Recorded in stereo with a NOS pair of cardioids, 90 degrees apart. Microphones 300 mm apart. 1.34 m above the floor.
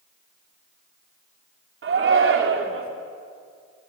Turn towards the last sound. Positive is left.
turn(degrees=-45)